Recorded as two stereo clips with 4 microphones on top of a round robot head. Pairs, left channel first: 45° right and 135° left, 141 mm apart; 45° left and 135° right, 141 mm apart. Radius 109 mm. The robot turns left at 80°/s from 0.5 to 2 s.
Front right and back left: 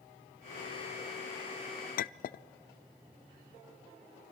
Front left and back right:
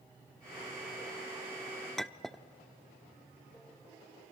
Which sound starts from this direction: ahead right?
A clink, at 2.0 s.